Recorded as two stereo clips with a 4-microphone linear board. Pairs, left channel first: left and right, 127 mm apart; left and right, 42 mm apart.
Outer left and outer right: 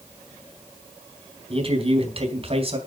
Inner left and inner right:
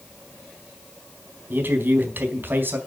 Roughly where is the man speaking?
Right.